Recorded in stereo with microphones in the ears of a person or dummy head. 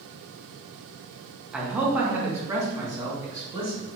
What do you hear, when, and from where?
1.5 s a man speaking: centre (ahead or behind), 0.9 m; by 3.9 s 20° right (ahead or behind), 2 m